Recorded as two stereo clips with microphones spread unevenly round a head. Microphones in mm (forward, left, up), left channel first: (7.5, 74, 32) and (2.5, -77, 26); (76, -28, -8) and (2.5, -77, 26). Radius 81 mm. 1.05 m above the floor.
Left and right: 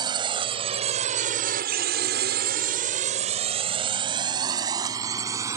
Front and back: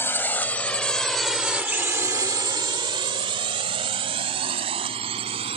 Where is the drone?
30° right; by 5.6 s 165° right.